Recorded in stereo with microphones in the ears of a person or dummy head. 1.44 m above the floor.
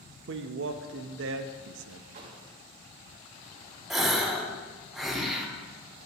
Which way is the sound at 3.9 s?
Centre (ahead or behind).